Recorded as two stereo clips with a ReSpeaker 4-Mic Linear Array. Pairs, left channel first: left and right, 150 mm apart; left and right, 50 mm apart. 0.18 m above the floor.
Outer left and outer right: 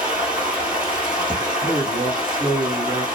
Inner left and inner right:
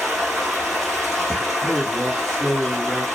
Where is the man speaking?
Centre (ahead or behind), 1.2 m.